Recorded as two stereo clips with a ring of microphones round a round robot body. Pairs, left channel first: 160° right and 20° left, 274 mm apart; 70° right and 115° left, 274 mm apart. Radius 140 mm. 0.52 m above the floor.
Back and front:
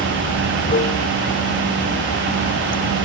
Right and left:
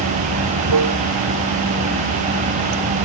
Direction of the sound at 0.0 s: 140° left.